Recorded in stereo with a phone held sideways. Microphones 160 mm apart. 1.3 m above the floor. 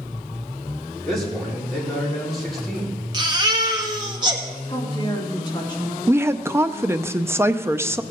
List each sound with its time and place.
1.0 s a man speaking: centre (ahead or behind), 4.5 m
3.1 s a baby crying: 30° right (ahead or behind), 1.4 m
4.7 s a woman speaking: 30° left (ahead or behind), 2.5 m
6.1 s a woman speaking: 15° right (ahead or behind), 0.6 m